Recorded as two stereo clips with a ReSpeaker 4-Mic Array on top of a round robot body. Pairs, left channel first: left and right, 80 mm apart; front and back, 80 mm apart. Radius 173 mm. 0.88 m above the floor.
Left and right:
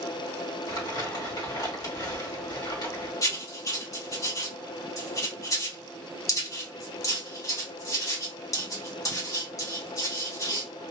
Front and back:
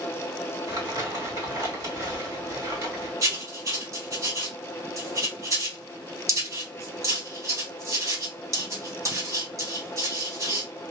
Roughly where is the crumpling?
Behind left.